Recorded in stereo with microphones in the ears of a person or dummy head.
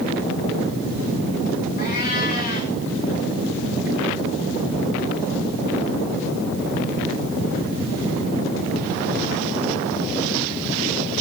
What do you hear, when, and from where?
1.8 s a cat meowing: 50° left (ahead or behind), 3.5 m